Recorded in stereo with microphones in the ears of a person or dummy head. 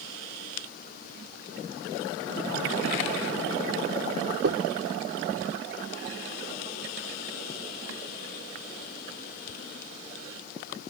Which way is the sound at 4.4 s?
65° right (ahead or behind).